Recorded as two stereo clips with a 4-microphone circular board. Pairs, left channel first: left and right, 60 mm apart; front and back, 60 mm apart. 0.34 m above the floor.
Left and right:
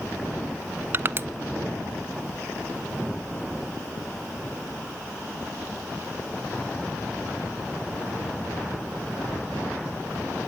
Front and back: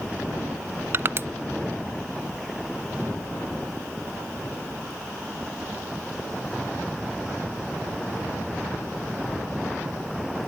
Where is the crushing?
140° right, 0.6 m.